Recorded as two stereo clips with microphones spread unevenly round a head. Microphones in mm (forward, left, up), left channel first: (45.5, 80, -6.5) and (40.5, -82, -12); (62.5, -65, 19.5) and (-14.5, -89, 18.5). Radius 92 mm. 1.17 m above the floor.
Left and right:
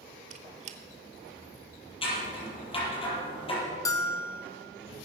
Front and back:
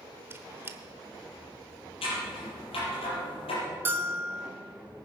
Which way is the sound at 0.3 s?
115° right.